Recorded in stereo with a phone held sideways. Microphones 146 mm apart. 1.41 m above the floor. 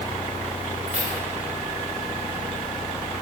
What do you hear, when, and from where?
0.9 s keys jangling: 65° right (ahead or behind), 4 m